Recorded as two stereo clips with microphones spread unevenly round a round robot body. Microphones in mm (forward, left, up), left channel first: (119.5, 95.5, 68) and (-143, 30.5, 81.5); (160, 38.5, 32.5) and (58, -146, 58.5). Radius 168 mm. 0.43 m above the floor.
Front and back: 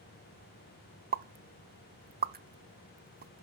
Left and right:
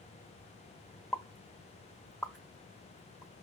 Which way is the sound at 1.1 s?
140° left.